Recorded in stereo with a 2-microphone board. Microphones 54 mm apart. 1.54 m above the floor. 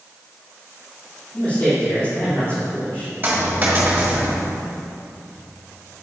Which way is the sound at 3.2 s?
30° right (ahead or behind).